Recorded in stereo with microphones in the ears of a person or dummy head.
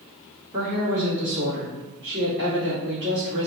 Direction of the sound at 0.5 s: 35° right (ahead or behind).